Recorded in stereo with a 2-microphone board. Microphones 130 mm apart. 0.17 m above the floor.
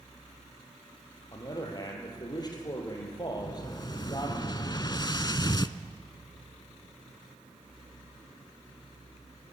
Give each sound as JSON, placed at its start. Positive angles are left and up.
{"t": 1.3, "sound": "a man speaking", "side_deg": 35, "distance_m": 4.5}
{"t": 3.3, "sound": "an explosion", "side_deg": 35, "distance_m": 0.6}